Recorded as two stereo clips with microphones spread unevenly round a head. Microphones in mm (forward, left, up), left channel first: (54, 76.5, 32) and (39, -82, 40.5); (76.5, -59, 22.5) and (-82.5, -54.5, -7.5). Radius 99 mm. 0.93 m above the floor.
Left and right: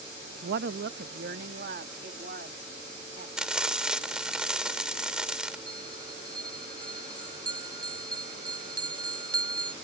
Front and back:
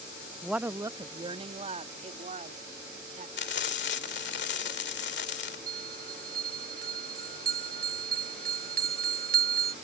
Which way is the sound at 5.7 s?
165° right.